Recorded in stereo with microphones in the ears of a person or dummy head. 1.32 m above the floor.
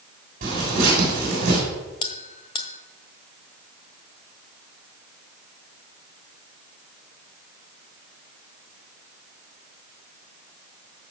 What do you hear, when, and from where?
0.4 s tearing paper: 50° right (ahead or behind), 7 m
2.0 s a bell: 30° left (ahead or behind), 1.4 m